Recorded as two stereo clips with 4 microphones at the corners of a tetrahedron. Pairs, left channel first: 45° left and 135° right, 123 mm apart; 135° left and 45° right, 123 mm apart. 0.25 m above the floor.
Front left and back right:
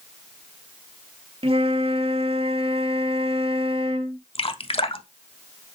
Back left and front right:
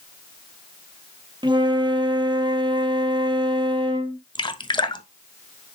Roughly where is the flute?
Right.